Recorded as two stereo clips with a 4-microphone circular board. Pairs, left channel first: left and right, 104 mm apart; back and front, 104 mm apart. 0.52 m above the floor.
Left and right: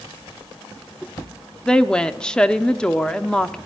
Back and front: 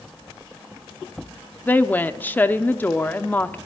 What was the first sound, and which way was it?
A woman speaking, 155° left.